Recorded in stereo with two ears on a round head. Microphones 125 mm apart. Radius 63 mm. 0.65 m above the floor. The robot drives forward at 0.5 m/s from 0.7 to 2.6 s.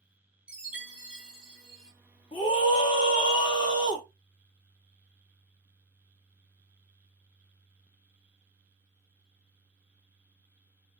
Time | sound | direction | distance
0.5 | a chime | 10° right (ahead or behind) | 0.8 m
2.3 | a scream | 30° left (ahead or behind) | 1.2 m